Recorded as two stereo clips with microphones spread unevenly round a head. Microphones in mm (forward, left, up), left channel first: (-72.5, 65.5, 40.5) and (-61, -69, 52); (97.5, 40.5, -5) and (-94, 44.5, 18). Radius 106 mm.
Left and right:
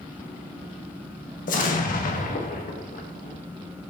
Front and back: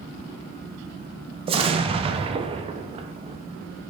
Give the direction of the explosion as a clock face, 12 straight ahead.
8 o'clock.